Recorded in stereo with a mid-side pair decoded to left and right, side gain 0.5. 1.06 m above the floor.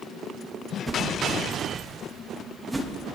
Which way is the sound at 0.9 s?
15° right.